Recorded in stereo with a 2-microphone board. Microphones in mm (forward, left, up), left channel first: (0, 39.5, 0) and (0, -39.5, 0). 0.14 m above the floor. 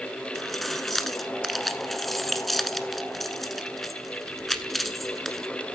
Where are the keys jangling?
Centre (ahead or behind), 1.1 m.